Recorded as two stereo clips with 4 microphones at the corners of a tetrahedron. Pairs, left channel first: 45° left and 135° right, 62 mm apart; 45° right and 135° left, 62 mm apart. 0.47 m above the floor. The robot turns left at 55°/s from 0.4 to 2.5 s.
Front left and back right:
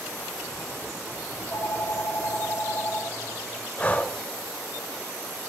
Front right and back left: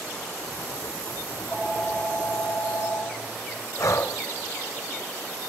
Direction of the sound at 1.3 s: 70° left.